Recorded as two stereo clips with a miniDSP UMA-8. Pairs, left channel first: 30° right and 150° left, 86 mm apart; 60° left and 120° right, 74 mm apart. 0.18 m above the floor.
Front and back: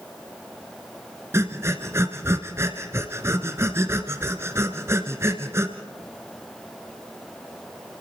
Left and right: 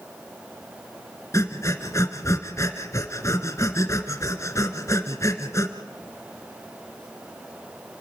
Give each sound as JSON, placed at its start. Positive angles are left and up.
{"t": 1.3, "sound": "breathing", "azimuth_deg": 95, "distance_m": 1.6}